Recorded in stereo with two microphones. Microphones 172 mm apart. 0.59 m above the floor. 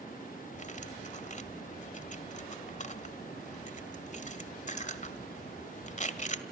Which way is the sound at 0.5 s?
45° left (ahead or behind).